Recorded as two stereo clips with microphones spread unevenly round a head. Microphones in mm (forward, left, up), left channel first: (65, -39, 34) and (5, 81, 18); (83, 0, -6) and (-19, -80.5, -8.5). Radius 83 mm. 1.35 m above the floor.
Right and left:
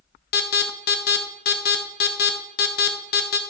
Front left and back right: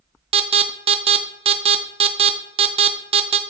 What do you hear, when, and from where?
0.3 s an alarm: 95° right, 0.7 m